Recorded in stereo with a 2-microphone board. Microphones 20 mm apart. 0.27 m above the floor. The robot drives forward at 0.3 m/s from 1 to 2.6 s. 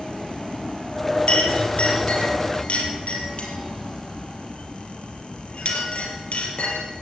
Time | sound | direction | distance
1.3 | a clink | 75° left (ahead or behind) | 4 m